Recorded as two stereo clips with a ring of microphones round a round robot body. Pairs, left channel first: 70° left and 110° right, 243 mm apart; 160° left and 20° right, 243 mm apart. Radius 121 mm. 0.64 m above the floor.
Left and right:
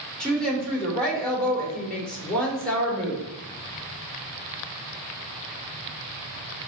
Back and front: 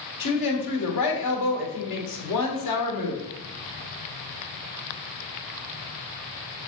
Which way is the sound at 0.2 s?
155° left.